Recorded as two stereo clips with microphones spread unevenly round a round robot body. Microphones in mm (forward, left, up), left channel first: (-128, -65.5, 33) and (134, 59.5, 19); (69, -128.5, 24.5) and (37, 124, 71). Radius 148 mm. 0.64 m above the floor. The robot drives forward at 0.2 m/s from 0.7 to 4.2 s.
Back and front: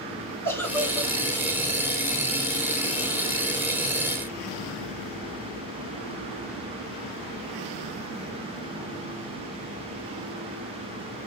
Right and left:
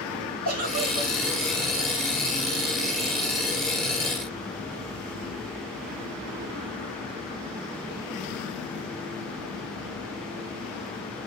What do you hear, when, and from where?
0.5 s a giggle: 120° left, 6.5 m; by 1.1 s 125° left, 6.5 m